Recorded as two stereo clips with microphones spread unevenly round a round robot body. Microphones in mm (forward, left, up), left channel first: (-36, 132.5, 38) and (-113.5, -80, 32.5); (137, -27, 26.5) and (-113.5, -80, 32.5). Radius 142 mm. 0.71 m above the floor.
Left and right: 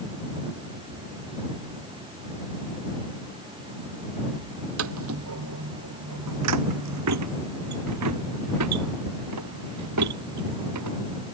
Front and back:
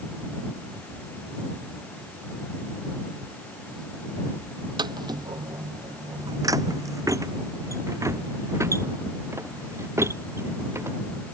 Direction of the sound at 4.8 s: 100° right.